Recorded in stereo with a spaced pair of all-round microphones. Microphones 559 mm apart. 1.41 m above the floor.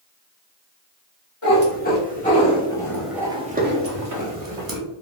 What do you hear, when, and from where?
1.4 s a cat meowing: 20° left (ahead or behind), 1.6 m; by 4.8 s 40° right (ahead or behind), 0.9 m